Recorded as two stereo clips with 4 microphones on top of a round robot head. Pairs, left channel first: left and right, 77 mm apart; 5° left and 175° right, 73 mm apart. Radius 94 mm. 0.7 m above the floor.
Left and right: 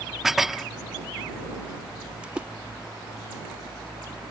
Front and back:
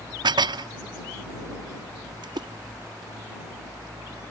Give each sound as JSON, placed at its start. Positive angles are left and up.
{"t": 0.2, "sound": "dishes clattering", "azimuth_deg": -175}
{"t": 2.2, "sound": "a splash", "azimuth_deg": -165}